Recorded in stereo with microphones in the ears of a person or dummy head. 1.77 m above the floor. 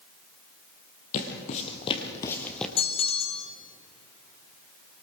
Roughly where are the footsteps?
Left.